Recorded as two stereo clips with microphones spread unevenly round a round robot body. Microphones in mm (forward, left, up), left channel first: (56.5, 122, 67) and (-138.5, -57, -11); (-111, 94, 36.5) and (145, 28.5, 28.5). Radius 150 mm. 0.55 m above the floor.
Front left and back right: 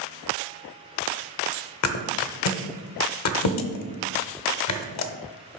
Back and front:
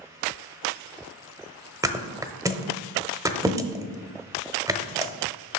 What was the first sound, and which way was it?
A thud, 65° left.